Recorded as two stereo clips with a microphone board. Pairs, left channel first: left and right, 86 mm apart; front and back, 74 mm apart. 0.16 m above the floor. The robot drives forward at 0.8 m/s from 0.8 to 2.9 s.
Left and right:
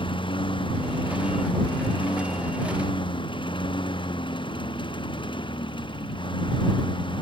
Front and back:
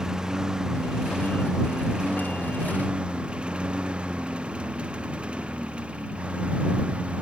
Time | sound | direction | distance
0.0 | a lawn mower | 100° left | ?